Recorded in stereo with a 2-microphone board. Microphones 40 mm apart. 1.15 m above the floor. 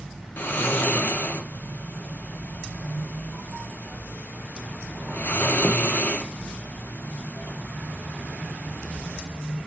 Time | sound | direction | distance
0.4 | snoring | 60° left (ahead or behind) | 0.5 m